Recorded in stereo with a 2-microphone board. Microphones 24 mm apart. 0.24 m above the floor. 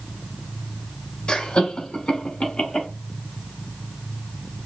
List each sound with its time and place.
1.3 s laughter: 45° left (ahead or behind), 2.5 m; by 2.9 s 55° left (ahead or behind), 3 m